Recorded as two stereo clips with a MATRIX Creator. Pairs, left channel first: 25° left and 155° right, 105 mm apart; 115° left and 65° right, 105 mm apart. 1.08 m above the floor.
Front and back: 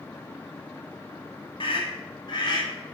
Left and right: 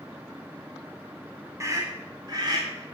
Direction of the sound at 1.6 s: 10° right.